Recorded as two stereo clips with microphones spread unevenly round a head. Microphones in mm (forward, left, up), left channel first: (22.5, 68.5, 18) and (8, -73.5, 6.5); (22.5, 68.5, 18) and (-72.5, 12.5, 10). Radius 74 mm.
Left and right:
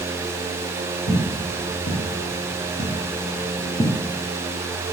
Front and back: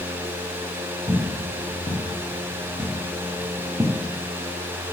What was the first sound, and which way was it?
Footsteps, 100° left.